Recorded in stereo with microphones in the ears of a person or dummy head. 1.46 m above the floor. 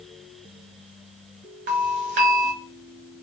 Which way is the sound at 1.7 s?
40° right (ahead or behind).